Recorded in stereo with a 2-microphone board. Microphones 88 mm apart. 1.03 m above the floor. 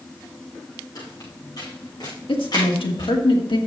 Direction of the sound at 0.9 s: 50° left (ahead or behind).